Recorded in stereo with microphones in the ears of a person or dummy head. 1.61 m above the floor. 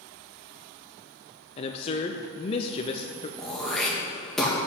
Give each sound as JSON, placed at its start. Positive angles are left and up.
{"t": 1.6, "sound": "a man speaking", "side_deg": 30, "distance_m": 0.7}
{"t": 3.4, "sound": "throat clearing", "side_deg": 0, "distance_m": 1.5}